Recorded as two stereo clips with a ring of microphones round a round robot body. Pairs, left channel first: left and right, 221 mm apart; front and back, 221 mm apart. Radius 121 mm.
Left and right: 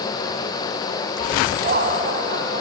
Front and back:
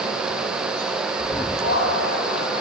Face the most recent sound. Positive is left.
turn(degrees=-50)